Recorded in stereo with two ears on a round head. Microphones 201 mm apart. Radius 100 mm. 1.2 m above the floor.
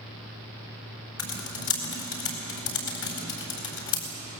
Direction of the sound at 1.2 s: 70° left (ahead or behind).